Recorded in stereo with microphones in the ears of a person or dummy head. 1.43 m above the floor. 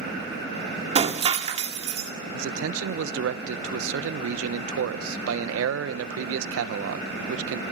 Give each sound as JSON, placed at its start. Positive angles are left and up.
{"t": 0.9, "sound": "breaking glass", "side_deg": -25, "distance_m": 1.8}
{"t": 2.3, "sound": "a man speaking", "side_deg": -85, "distance_m": 1.0}